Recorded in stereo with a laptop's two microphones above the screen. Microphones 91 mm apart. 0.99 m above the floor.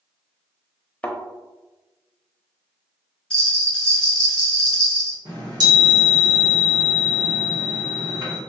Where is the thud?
15° left (ahead or behind), 0.7 m.